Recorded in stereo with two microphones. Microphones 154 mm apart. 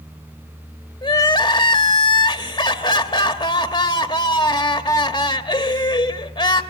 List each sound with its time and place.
1.0 s crying: 30° left (ahead or behind), 1.0 m